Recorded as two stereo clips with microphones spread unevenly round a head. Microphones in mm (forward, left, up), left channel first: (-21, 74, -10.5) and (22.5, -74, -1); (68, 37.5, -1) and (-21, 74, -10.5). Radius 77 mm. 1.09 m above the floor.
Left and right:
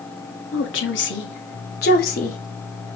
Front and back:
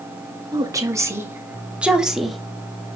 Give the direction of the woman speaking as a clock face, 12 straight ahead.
8 o'clock.